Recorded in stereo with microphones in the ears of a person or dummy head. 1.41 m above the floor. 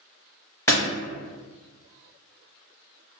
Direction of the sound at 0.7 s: 20° left (ahead or behind).